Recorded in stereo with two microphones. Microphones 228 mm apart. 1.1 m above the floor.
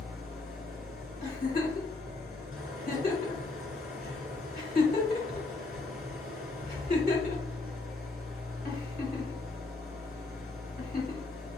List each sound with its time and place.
0.0 s an engine running: 70° right (ahead or behind), 2 m
1.2 s a giggle: 40° left (ahead or behind), 1.5 m